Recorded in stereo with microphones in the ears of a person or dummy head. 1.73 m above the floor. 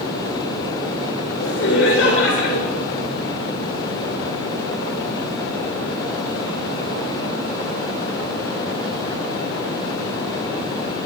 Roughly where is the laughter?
Left.